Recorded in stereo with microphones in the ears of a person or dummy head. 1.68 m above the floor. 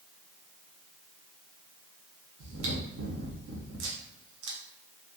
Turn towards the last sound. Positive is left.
turn(degrees=-60)  # may be behind; listen again after turning